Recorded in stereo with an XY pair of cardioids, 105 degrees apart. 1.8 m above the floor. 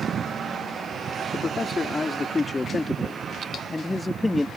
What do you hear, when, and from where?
1.3 s a man speaking: 25° left; by 4.5 s 10° left